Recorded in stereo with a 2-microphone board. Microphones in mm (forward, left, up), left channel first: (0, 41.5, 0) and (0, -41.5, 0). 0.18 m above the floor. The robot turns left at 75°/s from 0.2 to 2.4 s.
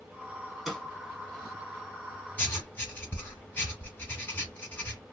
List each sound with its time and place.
0.7 s a snare drum: 5° right (ahead or behind), 2 m; by 0.8 s 5° left (ahead or behind), 2 m
2.4 s writing: 20° left (ahead or behind), 1.1 m; by 5.0 s 25° left (ahead or behind), 1.1 m